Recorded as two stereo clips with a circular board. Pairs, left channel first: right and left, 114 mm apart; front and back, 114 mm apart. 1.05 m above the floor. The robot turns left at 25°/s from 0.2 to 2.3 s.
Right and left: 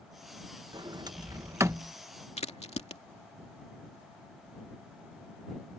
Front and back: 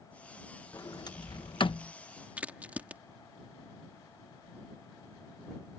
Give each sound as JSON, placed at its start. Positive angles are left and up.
{"t": 0.7, "sound": "a sliding door", "azimuth_deg": 55}
{"t": 2.4, "sound": "a crack", "azimuth_deg": -105}